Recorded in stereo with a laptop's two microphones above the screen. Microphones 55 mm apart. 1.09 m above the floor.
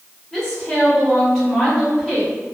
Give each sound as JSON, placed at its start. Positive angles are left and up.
{"t": 0.3, "sound": "a woman speaking", "side_deg": 10, "distance_m": 1.5}